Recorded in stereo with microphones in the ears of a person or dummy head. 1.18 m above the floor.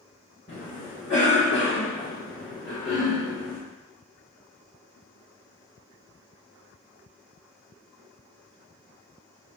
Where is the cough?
50° left (ahead or behind), 1.1 m.